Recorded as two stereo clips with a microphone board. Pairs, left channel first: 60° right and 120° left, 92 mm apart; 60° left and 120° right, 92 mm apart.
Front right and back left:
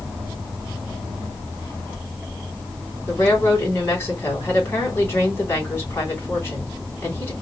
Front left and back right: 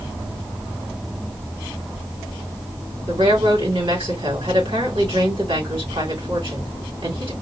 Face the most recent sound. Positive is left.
turn(degrees=-120)